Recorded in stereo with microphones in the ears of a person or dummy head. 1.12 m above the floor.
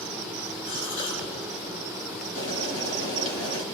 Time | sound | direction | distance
0.7 | a gasp | 80° left | 10 m
2.4 | boiling | 45° left (ahead or behind) | 4 m